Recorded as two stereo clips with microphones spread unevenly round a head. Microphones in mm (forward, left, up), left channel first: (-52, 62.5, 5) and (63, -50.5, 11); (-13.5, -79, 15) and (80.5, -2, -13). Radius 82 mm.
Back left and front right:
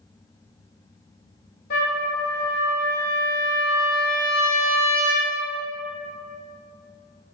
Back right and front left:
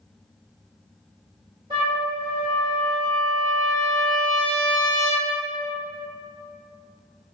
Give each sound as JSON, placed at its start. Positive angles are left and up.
{"t": 1.7, "sound": "a trumpet", "azimuth_deg": 100, "distance_m": 1.7}